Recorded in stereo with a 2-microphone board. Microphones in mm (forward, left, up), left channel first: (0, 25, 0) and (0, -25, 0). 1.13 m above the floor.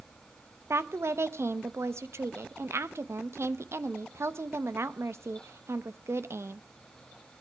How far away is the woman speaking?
About 0.9 m.